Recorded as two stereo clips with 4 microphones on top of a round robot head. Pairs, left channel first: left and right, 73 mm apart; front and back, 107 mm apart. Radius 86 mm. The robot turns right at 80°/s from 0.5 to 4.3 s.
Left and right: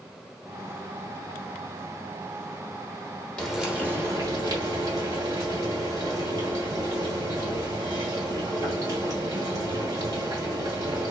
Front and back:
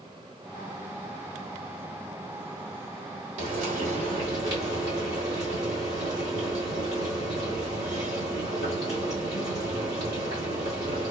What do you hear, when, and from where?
3.4 s frying: 170° left, 1.2 m; by 11.1 s 120° right, 1.2 m